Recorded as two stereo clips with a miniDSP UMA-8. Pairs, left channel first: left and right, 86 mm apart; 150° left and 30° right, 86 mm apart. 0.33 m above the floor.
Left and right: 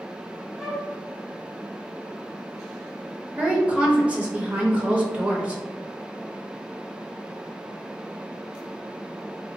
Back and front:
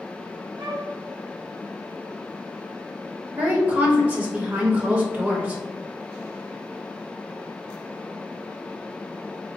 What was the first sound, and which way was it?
A flute, 5° right.